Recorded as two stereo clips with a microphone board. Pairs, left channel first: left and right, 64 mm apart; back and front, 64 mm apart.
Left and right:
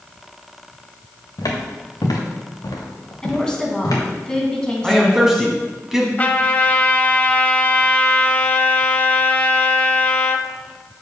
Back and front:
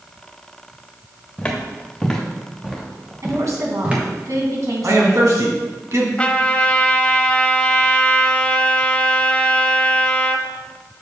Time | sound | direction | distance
1.4 | footsteps | 105° left | 2.5 m
3.2 | a woman speaking | 15° left | 2.5 m
4.8 | a man speaking | 10° right | 2 m
6.2 | a trumpet | 130° left | 0.7 m